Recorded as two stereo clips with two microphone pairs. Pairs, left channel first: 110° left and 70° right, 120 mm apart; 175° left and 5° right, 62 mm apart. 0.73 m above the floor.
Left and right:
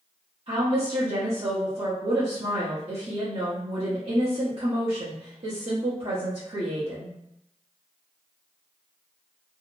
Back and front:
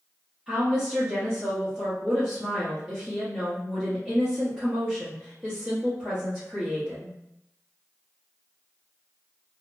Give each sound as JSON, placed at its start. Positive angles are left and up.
{"t": 0.5, "sound": "a woman speaking", "azimuth_deg": -85, "distance_m": 1.0}